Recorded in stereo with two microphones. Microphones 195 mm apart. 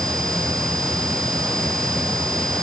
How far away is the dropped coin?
I don't hear a dropped coin.